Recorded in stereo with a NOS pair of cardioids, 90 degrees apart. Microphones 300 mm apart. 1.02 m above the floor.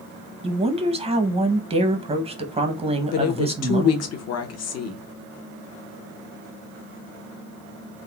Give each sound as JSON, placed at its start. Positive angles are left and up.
{"t": 0.4, "sound": "a woman speaking", "azimuth_deg": -20, "distance_m": 0.7}
{"t": 3.1, "sound": "a woman speaking", "azimuth_deg": 60, "distance_m": 0.8}